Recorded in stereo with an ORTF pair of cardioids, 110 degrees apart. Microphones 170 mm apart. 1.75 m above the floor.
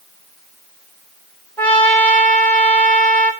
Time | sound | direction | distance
1.6 | a trumpet | 10° left | 3.5 m